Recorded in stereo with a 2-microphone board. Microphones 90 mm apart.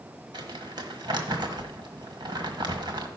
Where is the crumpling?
50° right (ahead or behind), 1.5 m.